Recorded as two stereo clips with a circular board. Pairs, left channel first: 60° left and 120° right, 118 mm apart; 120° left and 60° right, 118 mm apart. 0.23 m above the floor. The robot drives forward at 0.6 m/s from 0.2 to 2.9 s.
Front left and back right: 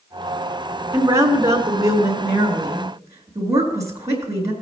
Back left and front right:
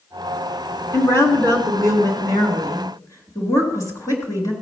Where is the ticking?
I don't hear ticking.